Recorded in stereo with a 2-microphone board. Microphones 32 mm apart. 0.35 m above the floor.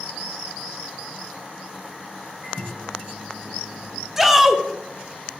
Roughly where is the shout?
Centre.